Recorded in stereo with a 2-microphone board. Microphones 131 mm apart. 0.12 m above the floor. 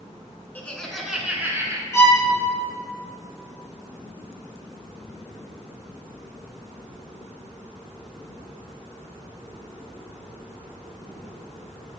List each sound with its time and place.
0.6 s laughter: 15° left (ahead or behind), 1.1 m; by 1.8 s 25° right (ahead or behind), 1.2 m
1.9 s a violin: 25° left (ahead or behind), 1.5 m